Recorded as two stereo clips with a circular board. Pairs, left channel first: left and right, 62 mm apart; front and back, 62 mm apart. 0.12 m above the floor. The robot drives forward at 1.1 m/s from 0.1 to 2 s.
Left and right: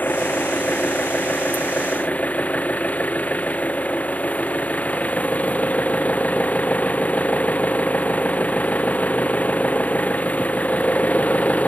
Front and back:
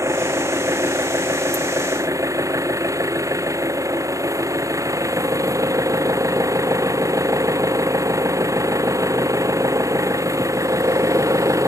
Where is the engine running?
145° left; by 11.7 s 155° left.